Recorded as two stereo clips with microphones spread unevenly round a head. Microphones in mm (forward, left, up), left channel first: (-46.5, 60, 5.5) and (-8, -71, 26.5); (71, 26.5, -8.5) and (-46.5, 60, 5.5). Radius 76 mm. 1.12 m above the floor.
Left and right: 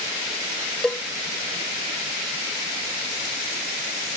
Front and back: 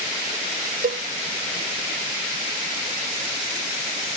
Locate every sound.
0.8 s a cowbell: 175° right